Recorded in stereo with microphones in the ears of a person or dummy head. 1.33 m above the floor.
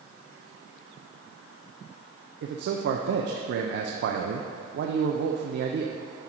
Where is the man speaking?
55° right (ahead or behind), 0.5 m.